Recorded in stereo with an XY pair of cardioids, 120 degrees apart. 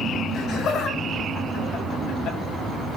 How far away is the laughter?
About 6 m.